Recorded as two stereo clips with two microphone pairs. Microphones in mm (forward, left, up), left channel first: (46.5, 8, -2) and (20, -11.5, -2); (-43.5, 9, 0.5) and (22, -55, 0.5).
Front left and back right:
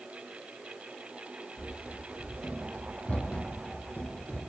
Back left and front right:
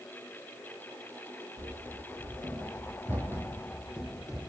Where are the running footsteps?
20° right, 4 m; by 4.4 s 45° left, 3.5 m.